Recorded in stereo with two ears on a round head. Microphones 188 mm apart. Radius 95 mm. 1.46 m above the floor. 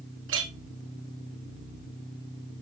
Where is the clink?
60° right (ahead or behind), 2 m.